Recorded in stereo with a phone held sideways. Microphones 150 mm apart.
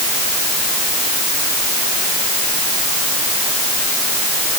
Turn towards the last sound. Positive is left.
No sound to turn to.